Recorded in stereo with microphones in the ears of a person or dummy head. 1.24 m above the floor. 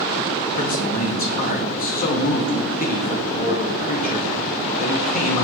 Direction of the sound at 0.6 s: 45° left (ahead or behind).